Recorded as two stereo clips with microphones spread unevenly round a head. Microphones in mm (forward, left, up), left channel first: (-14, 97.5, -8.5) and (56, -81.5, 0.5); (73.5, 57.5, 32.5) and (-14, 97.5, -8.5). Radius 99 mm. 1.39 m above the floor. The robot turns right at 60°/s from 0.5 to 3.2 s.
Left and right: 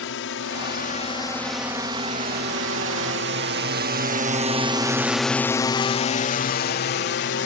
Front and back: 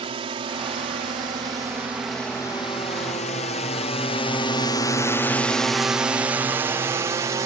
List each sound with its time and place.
0.0 s a drone: 140° left; by 7.5 s 125° left